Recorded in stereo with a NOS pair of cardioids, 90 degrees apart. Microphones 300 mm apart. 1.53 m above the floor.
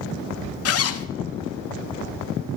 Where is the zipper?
45° left, 0.9 m.